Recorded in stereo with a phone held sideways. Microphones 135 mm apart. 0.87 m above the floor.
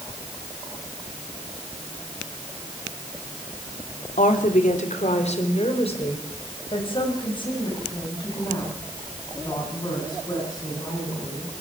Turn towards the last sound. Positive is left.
turn(degrees=30)  # may be behind; listen again after turning